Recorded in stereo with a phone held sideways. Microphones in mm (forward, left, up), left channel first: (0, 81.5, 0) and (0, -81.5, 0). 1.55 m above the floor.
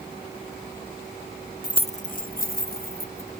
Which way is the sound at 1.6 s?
20° left (ahead or behind).